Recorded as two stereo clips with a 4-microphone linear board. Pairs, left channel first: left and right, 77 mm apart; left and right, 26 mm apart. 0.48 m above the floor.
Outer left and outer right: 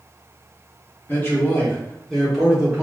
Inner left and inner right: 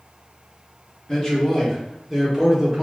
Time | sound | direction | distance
1.1 | a man speaking | 30° left (ahead or behind) | 1.4 m